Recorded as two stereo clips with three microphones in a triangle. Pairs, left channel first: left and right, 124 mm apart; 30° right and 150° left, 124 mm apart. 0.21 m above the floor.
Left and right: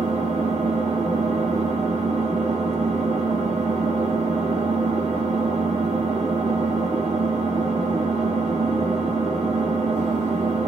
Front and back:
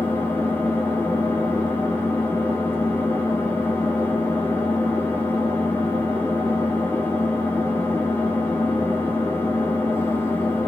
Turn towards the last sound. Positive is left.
turn(degrees=-105)